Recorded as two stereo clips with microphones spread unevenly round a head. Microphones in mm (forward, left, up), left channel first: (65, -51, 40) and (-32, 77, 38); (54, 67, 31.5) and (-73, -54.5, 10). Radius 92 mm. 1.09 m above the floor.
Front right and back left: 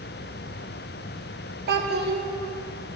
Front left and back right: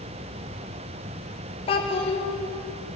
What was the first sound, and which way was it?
A child speaking, 100° left.